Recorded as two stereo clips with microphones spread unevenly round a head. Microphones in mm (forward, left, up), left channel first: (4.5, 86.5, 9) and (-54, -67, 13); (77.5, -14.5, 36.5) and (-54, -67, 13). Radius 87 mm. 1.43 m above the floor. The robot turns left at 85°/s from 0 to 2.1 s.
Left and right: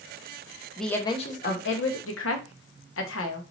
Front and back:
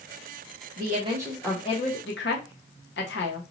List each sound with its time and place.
0.8 s a woman speaking: 160° left, 0.9 m; by 3.4 s 50° left, 0.9 m